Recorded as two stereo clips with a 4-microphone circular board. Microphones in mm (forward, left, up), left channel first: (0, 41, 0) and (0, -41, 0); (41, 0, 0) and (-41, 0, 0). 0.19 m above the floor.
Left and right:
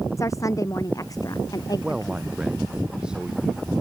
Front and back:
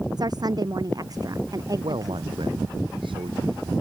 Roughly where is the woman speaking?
Behind left.